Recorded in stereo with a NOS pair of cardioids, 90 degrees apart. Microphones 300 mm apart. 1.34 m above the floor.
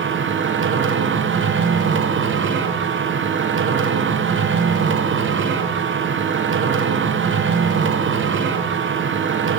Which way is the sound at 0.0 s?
45° right.